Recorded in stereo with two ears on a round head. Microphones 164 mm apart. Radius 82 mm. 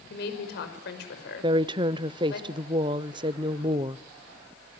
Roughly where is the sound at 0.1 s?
Left.